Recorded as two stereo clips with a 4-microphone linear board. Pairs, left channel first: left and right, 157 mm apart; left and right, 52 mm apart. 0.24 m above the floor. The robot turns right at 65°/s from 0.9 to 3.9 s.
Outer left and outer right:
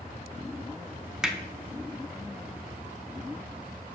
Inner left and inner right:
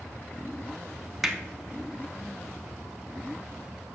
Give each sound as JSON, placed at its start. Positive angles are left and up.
{"t": 1.2, "sound": "hammering", "side_deg": -5, "distance_m": 0.6}